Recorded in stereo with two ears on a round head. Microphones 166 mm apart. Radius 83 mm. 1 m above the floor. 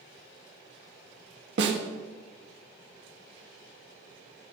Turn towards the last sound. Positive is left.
turn(degrees=-70)  # may be behind; listen again after turning